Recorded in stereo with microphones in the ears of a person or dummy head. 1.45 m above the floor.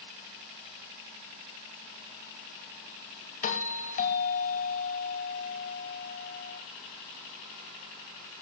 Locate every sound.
3.4 s a doorbell: 40° left (ahead or behind), 2.5 m